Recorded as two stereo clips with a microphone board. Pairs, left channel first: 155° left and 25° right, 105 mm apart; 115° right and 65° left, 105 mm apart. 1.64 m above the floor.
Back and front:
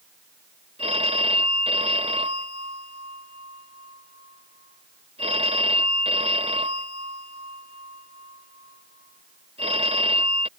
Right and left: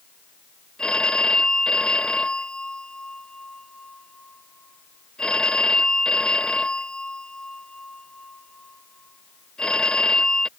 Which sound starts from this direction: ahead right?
A phone ringing, at 0.8 s.